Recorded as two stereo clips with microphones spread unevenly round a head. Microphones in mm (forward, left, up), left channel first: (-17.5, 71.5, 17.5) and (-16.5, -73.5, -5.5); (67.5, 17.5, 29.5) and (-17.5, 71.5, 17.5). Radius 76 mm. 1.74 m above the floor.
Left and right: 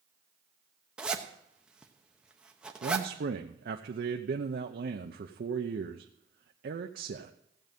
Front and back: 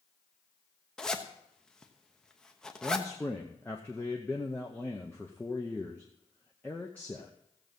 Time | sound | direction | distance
1.0 | a zipper | 10° left | 1.0 m
2.8 | a man speaking | 110° right | 0.8 m